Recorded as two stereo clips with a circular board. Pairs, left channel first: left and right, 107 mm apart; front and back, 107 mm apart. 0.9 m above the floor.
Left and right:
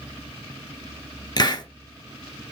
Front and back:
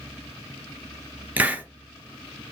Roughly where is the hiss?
Left.